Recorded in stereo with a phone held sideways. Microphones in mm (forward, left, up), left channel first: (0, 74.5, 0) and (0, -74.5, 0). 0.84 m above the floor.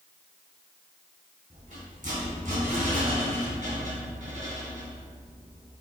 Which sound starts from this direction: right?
A rattle, at 1.5 s.